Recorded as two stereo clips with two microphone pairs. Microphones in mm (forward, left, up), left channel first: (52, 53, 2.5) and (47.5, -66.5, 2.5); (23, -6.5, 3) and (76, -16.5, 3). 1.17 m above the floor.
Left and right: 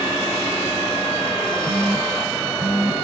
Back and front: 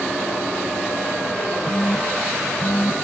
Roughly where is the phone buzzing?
Behind right.